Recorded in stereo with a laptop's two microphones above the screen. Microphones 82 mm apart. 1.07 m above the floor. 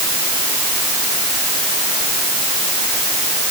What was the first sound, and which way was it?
Only background noise.